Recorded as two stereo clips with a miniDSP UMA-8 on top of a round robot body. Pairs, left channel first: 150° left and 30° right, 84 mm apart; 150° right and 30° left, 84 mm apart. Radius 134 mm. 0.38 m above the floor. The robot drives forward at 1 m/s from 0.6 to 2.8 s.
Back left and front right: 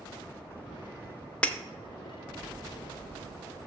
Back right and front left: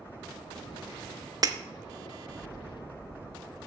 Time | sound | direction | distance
1.4 | breaking glass | 75° left | 0.8 m